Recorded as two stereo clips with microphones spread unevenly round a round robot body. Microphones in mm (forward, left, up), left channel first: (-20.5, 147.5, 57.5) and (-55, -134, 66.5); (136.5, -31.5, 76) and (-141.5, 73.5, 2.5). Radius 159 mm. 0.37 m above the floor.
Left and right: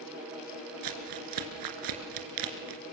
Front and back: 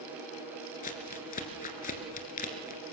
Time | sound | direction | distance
0.8 | crumpling | 85° right | 3 m